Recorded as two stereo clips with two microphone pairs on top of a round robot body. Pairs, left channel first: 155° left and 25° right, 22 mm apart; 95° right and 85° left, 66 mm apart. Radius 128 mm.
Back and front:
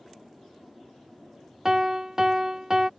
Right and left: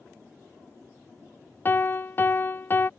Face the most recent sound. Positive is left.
turn(degrees=-55)